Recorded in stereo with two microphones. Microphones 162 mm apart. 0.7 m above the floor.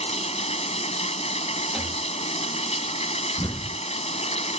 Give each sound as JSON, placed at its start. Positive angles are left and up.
{"t": 0.0, "sound": "running water", "side_deg": 45}
{"t": 1.7, "sound": "a rattle", "side_deg": -5}
{"t": 3.4, "sound": "an explosion", "side_deg": 25}